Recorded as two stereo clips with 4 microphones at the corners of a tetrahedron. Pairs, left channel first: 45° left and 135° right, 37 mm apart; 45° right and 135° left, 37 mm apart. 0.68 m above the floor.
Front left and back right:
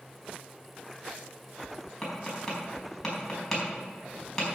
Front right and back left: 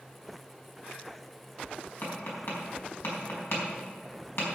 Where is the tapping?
35° right, 4.5 m.